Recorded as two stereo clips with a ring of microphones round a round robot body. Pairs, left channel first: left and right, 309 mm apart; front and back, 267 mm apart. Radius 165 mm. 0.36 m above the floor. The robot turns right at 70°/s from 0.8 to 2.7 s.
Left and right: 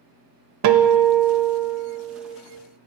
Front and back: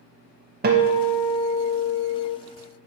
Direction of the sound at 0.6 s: 125° right.